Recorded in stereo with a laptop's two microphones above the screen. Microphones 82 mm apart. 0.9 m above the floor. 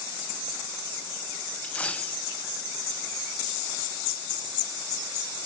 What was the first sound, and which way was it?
A dropped coin, 15° left (ahead or behind).